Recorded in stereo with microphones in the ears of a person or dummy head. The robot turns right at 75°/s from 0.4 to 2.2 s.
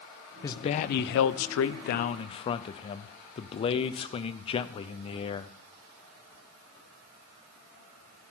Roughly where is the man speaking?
Ahead.